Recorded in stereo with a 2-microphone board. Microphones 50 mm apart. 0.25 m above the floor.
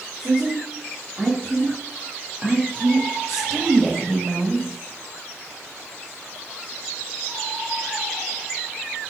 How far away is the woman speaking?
About 2.5 m.